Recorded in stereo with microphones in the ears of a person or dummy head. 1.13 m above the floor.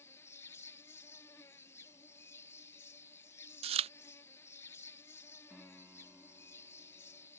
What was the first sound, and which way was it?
An insect, 10° left (ahead or behind).